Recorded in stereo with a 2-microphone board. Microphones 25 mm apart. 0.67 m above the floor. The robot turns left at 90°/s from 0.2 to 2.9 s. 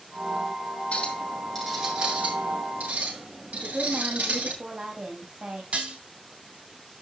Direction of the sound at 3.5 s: 65° right (ahead or behind).